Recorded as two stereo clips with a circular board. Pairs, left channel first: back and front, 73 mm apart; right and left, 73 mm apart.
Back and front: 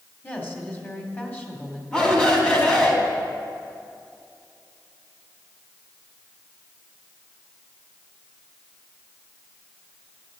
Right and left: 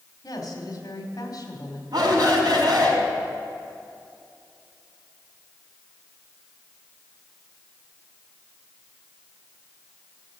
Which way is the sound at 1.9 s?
105° left.